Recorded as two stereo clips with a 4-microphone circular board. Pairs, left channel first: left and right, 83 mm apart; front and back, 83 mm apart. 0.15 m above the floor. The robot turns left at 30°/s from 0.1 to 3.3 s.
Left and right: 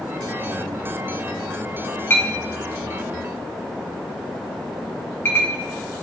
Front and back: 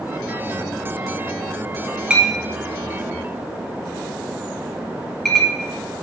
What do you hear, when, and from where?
2.1 s a clink: 120° left, 0.7 m; by 5.5 s 80° left, 0.7 m